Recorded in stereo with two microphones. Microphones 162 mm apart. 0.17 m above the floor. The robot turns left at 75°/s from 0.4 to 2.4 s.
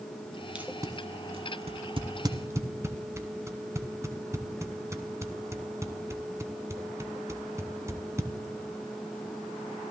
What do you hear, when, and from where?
0.6 s tape being pulled: 10° right (ahead or behind), 0.6 m; by 8.3 s 20° right (ahead or behind), 0.6 m